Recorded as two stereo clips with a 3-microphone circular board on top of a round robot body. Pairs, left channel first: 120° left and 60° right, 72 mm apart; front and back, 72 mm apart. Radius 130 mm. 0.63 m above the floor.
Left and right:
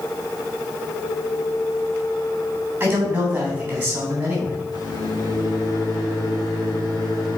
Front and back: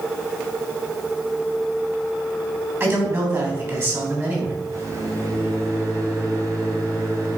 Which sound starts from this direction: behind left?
A microwave, at 4.7 s.